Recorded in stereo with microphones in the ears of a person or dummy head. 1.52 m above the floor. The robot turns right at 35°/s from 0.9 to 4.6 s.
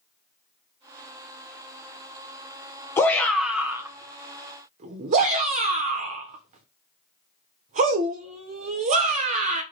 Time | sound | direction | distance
3.0 | a shout | 10° left (ahead or behind) | 0.7 m